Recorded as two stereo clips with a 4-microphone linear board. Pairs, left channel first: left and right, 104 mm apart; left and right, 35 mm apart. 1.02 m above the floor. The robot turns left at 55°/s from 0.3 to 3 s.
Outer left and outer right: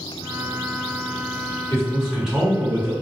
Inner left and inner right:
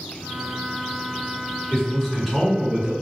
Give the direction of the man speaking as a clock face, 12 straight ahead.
11 o'clock.